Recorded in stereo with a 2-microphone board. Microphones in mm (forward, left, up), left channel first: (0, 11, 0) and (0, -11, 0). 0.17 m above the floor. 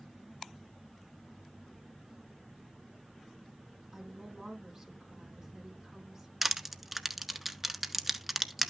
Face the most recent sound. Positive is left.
turn(degrees=-10)  # may be behind; listen again after turning